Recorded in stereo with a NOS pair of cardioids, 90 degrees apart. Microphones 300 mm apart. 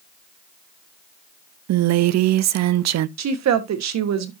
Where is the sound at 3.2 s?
65° right, 1.4 m.